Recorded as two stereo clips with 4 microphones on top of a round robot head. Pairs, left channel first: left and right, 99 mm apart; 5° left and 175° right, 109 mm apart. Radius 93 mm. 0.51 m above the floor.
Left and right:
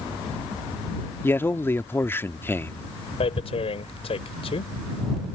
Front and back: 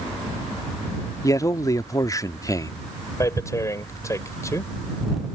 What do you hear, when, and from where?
1.2 s a man speaking: 40° left
3.2 s tearing paper: 65° left